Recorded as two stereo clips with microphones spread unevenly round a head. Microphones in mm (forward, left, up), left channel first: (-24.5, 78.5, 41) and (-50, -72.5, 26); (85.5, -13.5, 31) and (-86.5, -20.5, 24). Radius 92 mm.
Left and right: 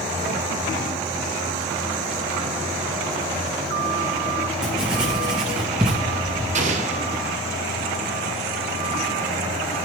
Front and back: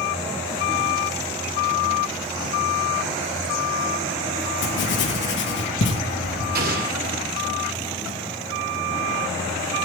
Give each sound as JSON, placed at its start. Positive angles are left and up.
{"t": 4.6, "sound": "writing", "azimuth_deg": -15, "distance_m": 1.9}
{"t": 6.5, "sound": "an explosion", "azimuth_deg": -140, "distance_m": 2.0}